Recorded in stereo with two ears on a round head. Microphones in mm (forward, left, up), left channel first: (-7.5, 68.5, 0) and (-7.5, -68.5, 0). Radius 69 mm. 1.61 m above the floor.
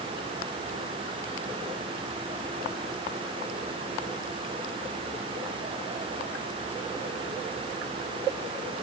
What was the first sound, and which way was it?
Only background noise.